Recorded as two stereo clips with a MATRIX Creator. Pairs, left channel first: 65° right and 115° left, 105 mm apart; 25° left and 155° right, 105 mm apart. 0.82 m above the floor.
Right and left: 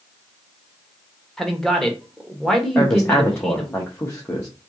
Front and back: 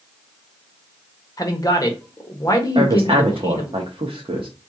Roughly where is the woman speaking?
Behind right.